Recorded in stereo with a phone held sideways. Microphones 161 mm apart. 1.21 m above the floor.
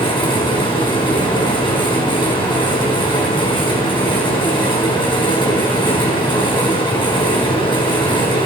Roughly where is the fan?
Left.